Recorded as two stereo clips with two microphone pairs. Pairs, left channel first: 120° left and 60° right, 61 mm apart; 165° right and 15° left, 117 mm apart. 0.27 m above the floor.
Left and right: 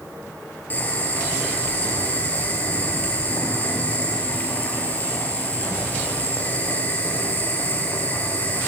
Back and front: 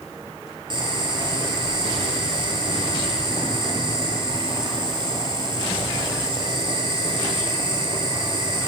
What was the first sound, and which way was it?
Boiling, 60° left.